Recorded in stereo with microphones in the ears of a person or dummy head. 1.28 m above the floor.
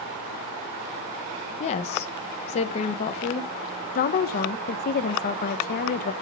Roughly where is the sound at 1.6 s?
Left.